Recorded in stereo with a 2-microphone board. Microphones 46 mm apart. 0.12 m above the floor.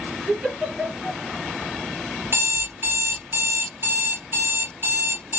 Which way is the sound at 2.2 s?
50° right (ahead or behind).